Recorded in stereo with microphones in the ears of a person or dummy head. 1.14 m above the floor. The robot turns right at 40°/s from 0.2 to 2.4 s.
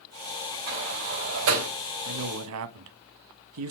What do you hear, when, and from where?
0.7 s a sliding door: 60° right (ahead or behind), 3.5 m; by 1.7 s 80° right, 3.5 m
2.0 s a man speaking: 70° right (ahead or behind), 1.0 m; by 3.7 s 85° right, 1.0 m